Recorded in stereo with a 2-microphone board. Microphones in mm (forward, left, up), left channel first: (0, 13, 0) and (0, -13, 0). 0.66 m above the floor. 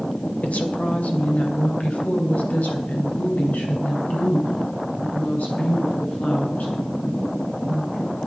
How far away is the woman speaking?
About 2.5 m.